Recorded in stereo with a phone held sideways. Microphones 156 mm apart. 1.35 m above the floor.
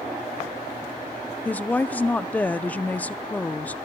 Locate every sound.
1.4 s a woman speaking: 10° left (ahead or behind), 0.6 m